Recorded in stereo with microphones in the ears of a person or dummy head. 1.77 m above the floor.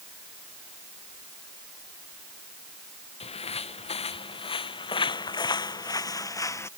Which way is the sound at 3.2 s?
30° left (ahead or behind).